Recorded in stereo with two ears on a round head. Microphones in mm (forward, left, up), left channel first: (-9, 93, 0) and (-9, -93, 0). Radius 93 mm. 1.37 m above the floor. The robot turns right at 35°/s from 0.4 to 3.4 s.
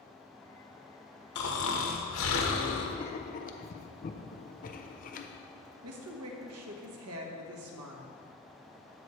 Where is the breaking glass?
No breaking glass in this recording.